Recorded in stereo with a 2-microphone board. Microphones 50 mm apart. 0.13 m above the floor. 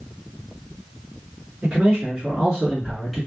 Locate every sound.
1.6 s a man speaking: 20° right (ahead or behind), 1.5 m; by 3.3 s centre (ahead or behind), 1.1 m